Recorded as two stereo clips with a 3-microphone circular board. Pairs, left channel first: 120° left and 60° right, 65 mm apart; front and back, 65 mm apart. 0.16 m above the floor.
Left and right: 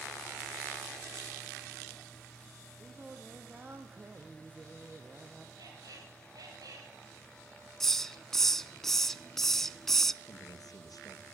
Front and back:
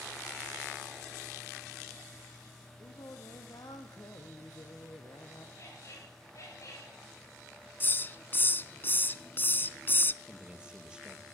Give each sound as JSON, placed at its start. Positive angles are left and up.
{"t": 2.8, "sound": "singing", "azimuth_deg": 5, "distance_m": 2.5}
{"t": 5.6, "sound": "a squeak", "azimuth_deg": -40, "distance_m": 10.0}
{"t": 7.8, "sound": "a hiss", "azimuth_deg": 40, "distance_m": 0.6}
{"t": 10.2, "sound": "a man speaking", "azimuth_deg": 105, "distance_m": 3.5}